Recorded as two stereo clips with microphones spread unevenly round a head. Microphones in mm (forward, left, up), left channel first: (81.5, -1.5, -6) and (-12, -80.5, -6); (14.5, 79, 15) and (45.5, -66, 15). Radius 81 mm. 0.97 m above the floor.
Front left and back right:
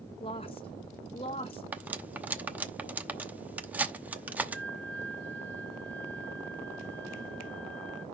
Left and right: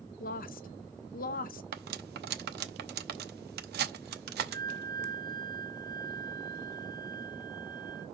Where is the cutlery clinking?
60° right, 0.9 m.